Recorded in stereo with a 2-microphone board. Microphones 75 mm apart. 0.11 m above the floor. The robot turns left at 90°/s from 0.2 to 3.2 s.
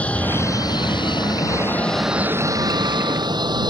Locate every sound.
0.0 s an aircraft: 160° left; by 3.7 s 110° right